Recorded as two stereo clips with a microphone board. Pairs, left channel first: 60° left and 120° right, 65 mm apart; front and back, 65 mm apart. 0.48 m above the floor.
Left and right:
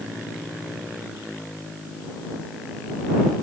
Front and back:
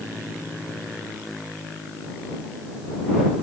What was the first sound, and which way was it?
Only background noise.